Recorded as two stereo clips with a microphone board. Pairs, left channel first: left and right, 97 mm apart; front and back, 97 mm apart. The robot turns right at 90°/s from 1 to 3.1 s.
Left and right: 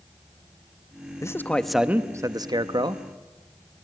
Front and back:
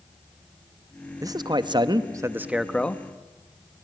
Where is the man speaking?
135° left, 1.3 m; by 3.0 s 60° right, 1.3 m.